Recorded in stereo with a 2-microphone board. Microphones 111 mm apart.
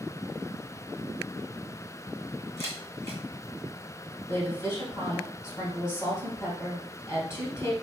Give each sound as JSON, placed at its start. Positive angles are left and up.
{"t": 2.6, "sound": "a camera shutter", "side_deg": 25, "distance_m": 1.8}
{"t": 4.3, "sound": "a woman speaking", "side_deg": 25, "distance_m": 2.5}